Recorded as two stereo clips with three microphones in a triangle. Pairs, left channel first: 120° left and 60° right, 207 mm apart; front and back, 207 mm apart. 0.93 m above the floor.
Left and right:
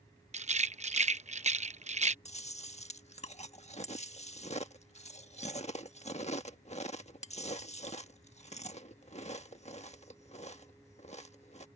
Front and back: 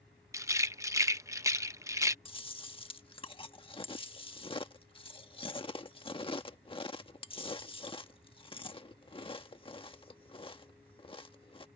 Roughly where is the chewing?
Ahead left.